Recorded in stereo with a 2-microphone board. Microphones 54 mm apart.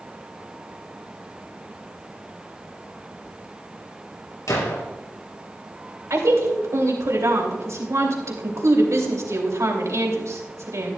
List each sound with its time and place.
4.5 s a gunshot: 85° left, 3.5 m
6.1 s a woman speaking: 65° right (ahead or behind), 2.5 m